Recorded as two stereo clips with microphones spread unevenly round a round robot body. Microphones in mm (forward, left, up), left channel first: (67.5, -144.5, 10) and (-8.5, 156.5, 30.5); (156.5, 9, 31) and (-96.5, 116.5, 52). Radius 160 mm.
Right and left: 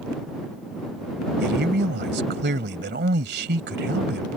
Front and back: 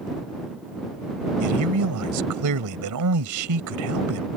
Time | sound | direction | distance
1.4 | a man speaking | 165° left | ?